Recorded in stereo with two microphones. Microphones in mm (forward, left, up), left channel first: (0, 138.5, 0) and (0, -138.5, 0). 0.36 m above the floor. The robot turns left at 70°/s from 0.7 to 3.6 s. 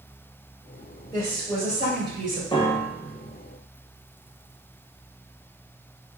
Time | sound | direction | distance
1.1 | a woman speaking | 20° left | 1.3 m
2.5 | a piano | 15° left (ahead or behind) | 0.8 m